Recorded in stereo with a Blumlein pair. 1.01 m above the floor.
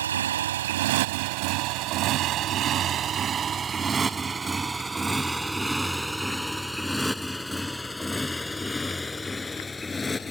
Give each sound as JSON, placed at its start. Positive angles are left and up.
{"t": 0.0, "sound": "a motorcycle", "azimuth_deg": -65}